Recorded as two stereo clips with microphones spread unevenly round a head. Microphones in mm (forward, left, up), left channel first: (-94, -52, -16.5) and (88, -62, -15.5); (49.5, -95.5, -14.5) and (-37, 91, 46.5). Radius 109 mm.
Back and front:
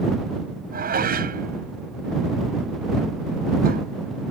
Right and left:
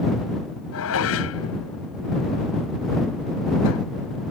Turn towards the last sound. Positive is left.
turn(degrees=-40)